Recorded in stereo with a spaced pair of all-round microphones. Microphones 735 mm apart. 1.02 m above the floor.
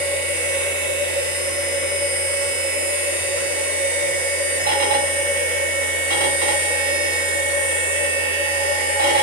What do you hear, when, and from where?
0.0 s a machine running: 10° right (ahead or behind), 1.3 m